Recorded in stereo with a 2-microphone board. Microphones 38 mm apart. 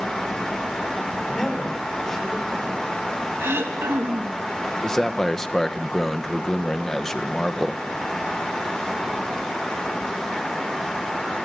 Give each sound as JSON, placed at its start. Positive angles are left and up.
{"t": 1.2, "sound": "a man speaking", "side_deg": 10, "distance_m": 5.5}
{"t": 3.4, "sound": "throat clearing", "side_deg": -85, "distance_m": 2.5}
{"t": 4.8, "sound": "a man speaking", "side_deg": 10, "distance_m": 1.3}